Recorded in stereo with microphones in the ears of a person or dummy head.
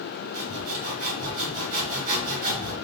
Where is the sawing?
45° right (ahead or behind), 1.3 m.